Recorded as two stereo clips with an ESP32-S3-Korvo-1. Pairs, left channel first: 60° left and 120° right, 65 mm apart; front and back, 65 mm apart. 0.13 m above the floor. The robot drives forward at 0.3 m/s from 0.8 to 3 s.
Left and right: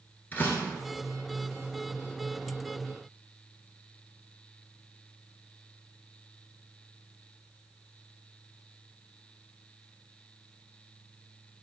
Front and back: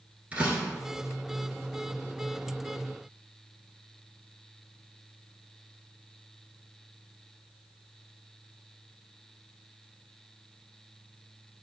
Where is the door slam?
115° left, 1.4 m.